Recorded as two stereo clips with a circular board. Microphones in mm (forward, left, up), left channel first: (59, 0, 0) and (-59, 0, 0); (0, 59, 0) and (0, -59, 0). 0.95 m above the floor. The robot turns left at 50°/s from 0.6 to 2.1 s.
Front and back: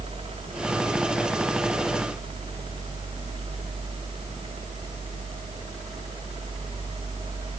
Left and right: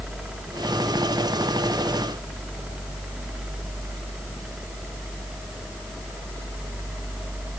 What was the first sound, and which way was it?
Only background noise.